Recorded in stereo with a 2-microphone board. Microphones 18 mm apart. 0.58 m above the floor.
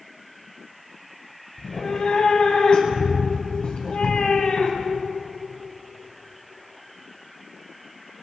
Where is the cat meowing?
55° left (ahead or behind), 2.0 m.